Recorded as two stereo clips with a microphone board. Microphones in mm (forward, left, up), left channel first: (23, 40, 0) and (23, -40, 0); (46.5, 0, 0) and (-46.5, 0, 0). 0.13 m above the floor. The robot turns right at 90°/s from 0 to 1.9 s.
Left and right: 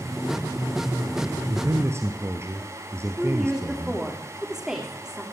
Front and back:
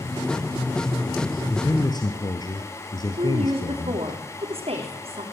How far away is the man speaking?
About 2.5 m.